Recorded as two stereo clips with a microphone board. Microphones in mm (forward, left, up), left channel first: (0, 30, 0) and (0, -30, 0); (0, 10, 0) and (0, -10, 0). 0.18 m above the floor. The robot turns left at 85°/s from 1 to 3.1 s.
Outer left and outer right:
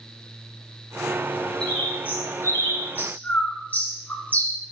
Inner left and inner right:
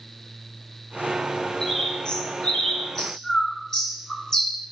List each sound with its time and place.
1.6 s a bird: 10° left (ahead or behind), 2.0 m; by 4.6 s 30° left (ahead or behind), 2.0 m